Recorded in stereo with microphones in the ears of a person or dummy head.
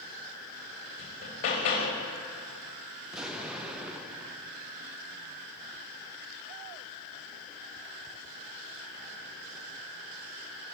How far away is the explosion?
About 0.6 m.